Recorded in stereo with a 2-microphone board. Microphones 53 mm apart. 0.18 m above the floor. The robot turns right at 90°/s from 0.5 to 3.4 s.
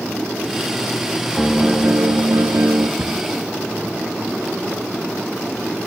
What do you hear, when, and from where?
1.4 s a piano: 175° left, 1.6 m; by 2.9 s 45° right, 1.6 m
3.0 s a cupboard door: 50° right (ahead or behind), 1.8 m; by 3.2 s 55° right (ahead or behind), 1.8 m